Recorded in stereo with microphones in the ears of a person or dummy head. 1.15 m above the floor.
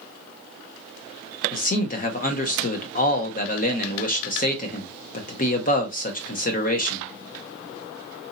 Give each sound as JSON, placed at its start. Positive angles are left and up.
{"t": 1.5, "sound": "a man speaking", "side_deg": 45, "distance_m": 0.8}